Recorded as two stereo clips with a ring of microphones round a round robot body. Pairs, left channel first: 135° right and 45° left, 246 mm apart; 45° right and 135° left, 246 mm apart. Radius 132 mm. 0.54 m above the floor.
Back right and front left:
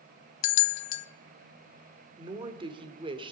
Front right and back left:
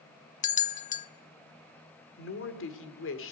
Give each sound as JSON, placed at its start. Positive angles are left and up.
{"t": 0.4, "sound": "a bell", "azimuth_deg": -105, "distance_m": 0.7}
{"t": 2.2, "sound": "a woman speaking", "azimuth_deg": -20, "distance_m": 2.0}